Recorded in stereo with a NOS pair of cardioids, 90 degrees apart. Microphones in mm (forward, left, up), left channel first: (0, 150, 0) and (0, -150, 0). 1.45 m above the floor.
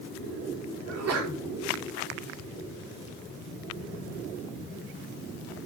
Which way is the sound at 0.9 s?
55° right.